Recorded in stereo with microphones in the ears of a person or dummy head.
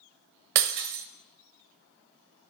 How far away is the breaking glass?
About 0.6 m.